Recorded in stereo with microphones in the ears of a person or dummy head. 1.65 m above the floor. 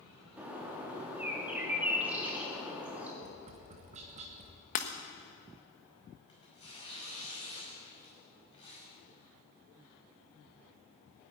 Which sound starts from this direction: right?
Tapping, at 3.2 s.